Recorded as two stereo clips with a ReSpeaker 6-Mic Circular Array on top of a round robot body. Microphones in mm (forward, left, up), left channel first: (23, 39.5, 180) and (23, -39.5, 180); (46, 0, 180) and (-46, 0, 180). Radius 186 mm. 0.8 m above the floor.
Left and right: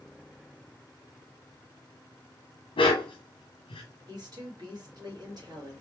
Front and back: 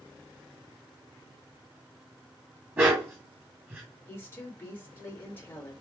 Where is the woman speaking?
65° right, 2.5 m.